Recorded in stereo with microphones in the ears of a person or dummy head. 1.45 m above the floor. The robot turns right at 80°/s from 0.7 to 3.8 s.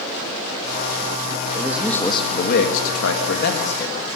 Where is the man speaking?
20° right, 2.5 m; by 4.1 s 160° left, 2.5 m.